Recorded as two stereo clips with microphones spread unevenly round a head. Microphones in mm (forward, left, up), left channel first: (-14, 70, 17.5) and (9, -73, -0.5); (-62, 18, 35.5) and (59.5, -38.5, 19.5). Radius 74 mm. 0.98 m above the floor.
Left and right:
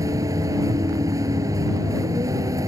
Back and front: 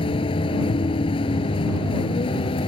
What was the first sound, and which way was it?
A vehicle, 150° right.